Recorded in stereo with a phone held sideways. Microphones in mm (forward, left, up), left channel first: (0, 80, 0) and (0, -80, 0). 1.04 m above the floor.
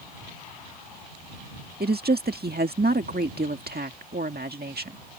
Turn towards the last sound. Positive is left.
turn(degrees=-80)